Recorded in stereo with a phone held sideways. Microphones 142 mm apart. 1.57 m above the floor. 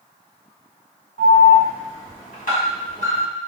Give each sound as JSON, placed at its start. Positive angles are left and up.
{"t": 1.2, "sound": "an alarm", "side_deg": 70, "distance_m": 1.7}